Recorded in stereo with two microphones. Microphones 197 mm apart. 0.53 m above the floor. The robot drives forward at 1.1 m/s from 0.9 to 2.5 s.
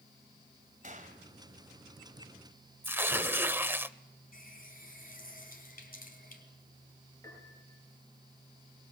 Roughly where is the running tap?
Left.